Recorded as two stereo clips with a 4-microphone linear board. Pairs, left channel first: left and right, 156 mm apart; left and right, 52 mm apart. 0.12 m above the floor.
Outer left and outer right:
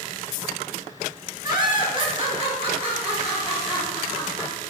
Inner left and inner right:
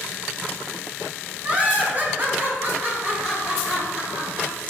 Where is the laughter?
25° right (ahead or behind), 1.6 m; by 4.6 s 40° right (ahead or behind), 3 m.